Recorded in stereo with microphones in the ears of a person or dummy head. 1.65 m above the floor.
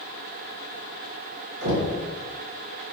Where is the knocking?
60° right (ahead or behind), 1.1 m.